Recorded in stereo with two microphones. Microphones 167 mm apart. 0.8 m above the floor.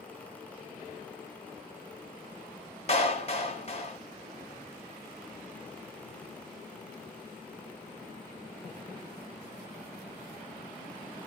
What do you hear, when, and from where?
2.9 s a clap: 40° left (ahead or behind), 1.2 m